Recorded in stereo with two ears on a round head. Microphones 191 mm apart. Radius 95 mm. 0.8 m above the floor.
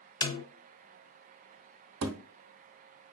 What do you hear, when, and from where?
0.2 s a snare drum: 20° left (ahead or behind), 0.6 m
2.0 s a thud: 60° right (ahead or behind), 0.7 m